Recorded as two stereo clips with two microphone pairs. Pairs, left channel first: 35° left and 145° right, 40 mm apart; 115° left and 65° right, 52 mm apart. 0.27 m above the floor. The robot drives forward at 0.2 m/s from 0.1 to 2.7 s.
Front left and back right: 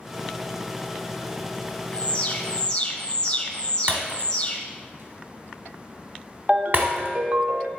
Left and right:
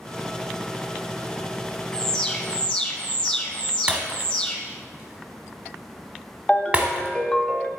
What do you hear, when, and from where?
1.9 s an alarm: 60° left, 0.9 m; by 4.6 s 75° left, 0.9 m
3.9 s breaking glass: 130° right, 1.1 m
6.5 s a ringtone: 175° left, 0.7 m